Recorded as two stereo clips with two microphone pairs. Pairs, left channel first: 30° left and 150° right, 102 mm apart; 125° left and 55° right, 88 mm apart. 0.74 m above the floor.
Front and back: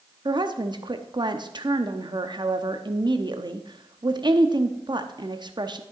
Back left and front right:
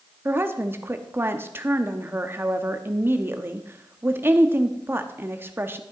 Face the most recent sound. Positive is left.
turn(degrees=-115)